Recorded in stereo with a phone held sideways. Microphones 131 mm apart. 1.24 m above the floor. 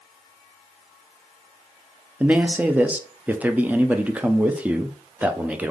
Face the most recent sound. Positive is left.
turn(degrees=-10)  # may be behind; listen again after turning